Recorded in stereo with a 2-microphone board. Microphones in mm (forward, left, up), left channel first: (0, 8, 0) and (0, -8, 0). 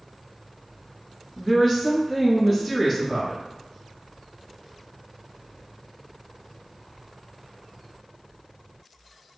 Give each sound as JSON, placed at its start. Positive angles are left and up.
{"t": 1.4, "sound": "a woman speaking", "side_deg": 20, "distance_m": 1.3}